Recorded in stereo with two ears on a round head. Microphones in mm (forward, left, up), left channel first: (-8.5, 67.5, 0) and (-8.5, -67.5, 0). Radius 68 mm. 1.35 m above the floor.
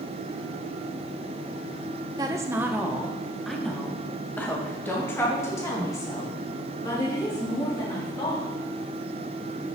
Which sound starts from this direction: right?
A woman speaking, at 2.2 s.